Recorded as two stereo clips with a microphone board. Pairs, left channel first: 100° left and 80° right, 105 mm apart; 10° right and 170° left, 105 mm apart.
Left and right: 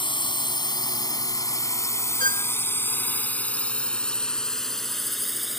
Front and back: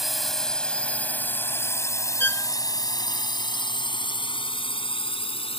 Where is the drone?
80° left; by 5.6 s 10° left.